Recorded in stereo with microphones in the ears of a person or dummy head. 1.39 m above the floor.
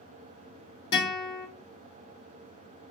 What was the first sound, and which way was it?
A guitar, 30° left (ahead or behind).